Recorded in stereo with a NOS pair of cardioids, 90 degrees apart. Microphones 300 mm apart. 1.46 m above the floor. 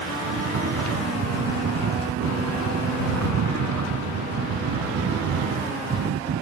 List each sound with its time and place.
0.2 s snoring: 55° right